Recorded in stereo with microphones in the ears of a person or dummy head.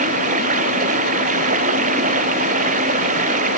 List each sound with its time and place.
0.0 s running water: 45° right (ahead or behind)